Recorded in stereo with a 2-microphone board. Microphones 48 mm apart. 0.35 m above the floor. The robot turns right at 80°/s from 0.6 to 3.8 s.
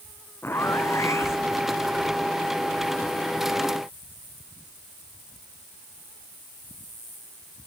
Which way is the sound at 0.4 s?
55° left.